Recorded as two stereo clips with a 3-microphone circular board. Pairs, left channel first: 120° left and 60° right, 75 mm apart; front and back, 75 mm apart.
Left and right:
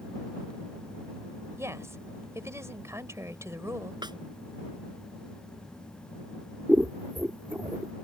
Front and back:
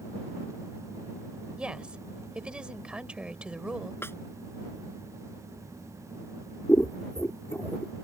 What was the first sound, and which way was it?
A woman speaking, 105° right.